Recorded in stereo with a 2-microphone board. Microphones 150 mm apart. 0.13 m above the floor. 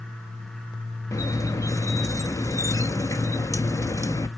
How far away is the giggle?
No giggle in this recording.